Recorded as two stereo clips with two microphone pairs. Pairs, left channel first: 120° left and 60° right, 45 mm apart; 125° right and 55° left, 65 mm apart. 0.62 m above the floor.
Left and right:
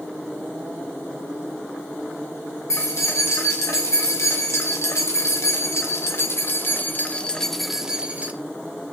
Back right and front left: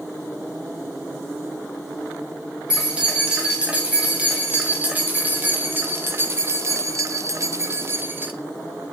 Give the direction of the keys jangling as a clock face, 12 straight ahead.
8 o'clock.